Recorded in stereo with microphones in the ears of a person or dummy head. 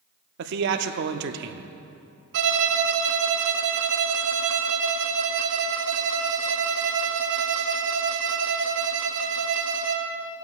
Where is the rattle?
No rattle in this recording.